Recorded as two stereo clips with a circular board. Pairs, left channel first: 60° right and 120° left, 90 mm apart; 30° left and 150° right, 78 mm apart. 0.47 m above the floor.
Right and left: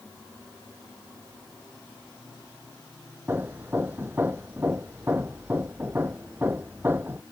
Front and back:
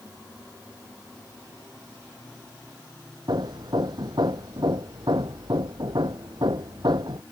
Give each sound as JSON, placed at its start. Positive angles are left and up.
{"t": 3.3, "sound": "hammering", "azimuth_deg": -175}